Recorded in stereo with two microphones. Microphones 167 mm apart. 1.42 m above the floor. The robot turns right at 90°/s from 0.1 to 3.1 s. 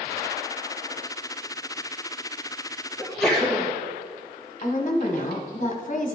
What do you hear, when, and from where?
3.0 s a sneeze: 10° right (ahead or behind), 1.6 m; by 3.7 s centre (ahead or behind), 1.6 m
4.6 s a woman speaking: 45° left (ahead or behind), 1.0 m